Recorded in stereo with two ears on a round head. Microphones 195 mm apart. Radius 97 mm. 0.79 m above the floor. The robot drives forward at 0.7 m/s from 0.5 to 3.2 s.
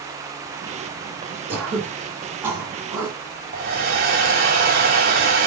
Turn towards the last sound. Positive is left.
turn(degrees=-45)  # may be behind; listen again after turning